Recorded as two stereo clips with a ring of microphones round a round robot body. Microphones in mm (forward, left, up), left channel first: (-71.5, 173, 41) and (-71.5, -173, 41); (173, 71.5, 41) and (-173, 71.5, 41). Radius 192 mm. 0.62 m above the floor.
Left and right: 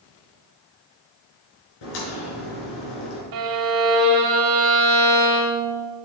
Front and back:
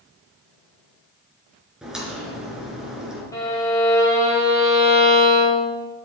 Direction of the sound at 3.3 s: 80° right.